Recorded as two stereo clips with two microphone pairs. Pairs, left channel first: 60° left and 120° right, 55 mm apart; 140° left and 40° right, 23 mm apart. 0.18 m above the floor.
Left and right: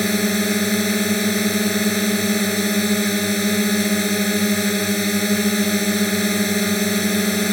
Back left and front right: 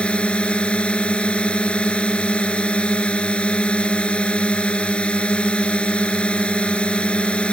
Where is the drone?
145° left.